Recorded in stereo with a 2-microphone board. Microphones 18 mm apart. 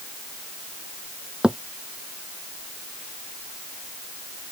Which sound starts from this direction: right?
A thud, at 1.4 s.